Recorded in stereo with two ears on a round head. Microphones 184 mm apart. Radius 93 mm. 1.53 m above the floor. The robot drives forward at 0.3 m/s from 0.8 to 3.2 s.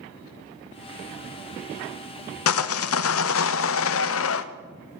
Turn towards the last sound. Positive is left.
turn(degrees=75)  # may be behind; listen again after turning